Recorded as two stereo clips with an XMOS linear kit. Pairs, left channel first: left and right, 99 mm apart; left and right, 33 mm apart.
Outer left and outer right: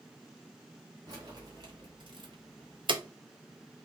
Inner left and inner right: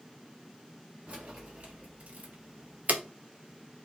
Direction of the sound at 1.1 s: 40° right (ahead or behind).